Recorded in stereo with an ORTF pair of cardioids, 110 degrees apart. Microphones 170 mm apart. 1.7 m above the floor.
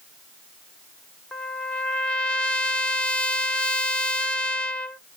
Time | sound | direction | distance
1.3 | a trumpet | 5° left | 0.6 m